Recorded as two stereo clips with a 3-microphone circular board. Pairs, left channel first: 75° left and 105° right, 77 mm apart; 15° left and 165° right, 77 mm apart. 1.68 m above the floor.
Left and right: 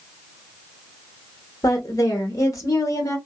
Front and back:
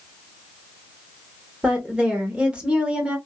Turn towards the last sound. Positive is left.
turn(degrees=120)